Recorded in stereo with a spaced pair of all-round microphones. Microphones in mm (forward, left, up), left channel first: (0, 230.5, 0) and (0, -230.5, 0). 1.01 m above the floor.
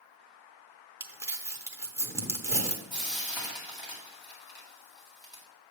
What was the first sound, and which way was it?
Crumpling, 5° right (ahead or behind).